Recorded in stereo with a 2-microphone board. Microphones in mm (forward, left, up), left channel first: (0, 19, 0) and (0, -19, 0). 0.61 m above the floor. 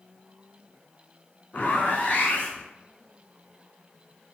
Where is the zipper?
55° left (ahead or behind), 0.9 m.